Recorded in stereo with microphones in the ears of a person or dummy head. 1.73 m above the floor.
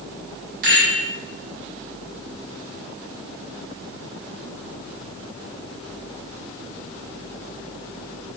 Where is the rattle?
50° right (ahead or behind), 1.7 m.